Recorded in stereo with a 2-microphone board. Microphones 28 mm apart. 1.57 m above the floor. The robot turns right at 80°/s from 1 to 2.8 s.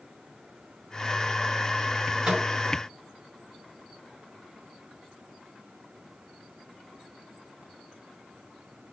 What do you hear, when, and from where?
2.2 s a microwave: 15° right (ahead or behind), 4 m; by 2.5 s 35° right (ahead or behind), 4 m